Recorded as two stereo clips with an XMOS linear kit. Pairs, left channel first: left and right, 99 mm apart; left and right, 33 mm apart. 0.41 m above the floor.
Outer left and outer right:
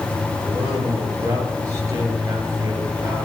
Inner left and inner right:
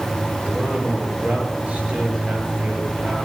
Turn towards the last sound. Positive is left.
turn(degrees=-35)  # may be behind; listen again after turning